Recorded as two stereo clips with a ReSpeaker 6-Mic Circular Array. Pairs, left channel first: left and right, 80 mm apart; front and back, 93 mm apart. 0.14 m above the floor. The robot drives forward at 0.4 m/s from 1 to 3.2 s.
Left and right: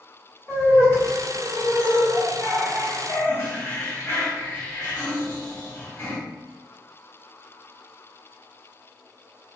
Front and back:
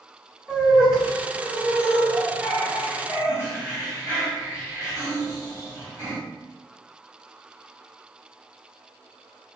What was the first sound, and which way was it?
Laughter, 100° left.